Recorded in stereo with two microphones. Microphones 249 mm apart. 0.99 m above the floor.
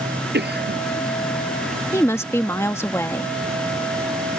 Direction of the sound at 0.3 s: 40° right (ahead or behind).